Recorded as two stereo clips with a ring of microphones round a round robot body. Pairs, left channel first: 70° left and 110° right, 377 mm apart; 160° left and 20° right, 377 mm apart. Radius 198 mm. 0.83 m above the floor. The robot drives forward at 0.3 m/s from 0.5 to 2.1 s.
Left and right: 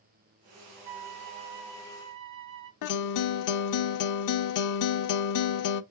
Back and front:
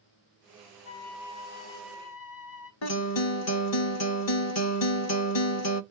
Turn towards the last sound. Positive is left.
turn(degrees=110)